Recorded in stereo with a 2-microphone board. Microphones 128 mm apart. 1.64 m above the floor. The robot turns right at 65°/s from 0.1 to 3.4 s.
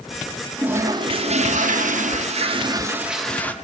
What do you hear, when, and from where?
0.6 s a toilet flushing: 170° right, 0.9 m; by 3.5 s 10° left, 0.9 m